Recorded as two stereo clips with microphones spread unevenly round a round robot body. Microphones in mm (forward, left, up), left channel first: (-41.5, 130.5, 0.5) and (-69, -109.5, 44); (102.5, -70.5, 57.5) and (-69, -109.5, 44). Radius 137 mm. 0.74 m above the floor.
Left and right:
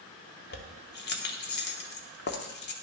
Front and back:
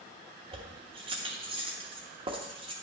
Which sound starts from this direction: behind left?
Keys jangling, at 0.5 s.